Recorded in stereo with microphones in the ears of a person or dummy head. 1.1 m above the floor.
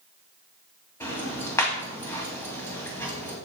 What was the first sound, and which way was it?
Ticking, 20° left (ahead or behind).